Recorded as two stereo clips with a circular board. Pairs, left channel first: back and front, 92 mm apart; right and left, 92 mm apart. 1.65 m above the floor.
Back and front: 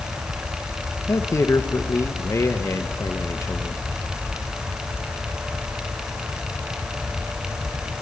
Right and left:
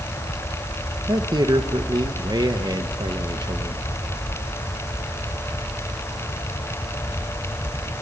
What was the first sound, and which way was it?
A man speaking, 125° left.